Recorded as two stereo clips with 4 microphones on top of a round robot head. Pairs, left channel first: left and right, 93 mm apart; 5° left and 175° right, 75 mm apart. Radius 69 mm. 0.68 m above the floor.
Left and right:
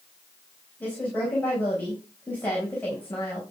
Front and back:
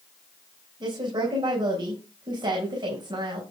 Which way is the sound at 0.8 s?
165° left.